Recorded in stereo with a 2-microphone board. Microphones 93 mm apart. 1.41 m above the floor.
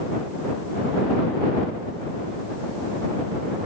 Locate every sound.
Only background noise.